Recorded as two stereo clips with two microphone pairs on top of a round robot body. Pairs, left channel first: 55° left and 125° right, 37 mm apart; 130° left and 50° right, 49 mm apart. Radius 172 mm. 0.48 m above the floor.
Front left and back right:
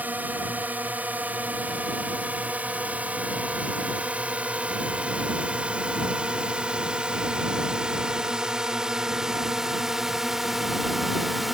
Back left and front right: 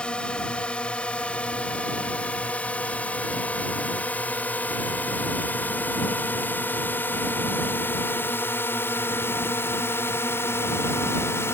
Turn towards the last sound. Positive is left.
turn(degrees=150)